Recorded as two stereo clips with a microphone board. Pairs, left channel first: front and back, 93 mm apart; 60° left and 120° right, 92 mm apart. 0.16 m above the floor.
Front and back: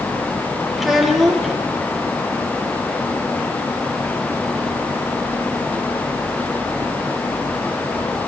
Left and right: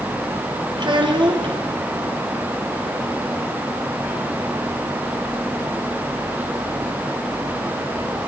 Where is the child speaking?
95° right, 3.5 m.